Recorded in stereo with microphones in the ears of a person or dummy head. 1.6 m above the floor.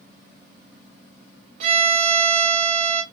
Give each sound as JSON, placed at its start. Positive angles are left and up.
{"t": 1.6, "sound": "a violin", "side_deg": -35, "distance_m": 0.7}